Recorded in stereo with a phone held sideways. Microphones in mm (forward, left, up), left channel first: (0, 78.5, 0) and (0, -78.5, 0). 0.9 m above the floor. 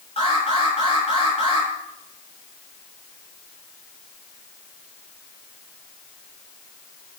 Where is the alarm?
40° left (ahead or behind), 9 m.